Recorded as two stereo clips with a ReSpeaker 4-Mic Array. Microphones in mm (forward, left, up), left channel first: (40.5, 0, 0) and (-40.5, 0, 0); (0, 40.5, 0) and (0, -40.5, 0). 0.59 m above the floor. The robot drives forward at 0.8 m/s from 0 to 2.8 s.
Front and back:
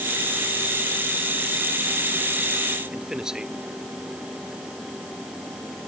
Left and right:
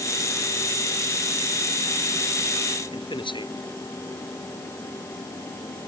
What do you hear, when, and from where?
2.9 s a man speaking: 95° left